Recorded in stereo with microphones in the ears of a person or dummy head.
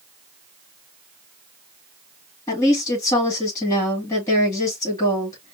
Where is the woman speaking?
15° left (ahead or behind), 2.5 m.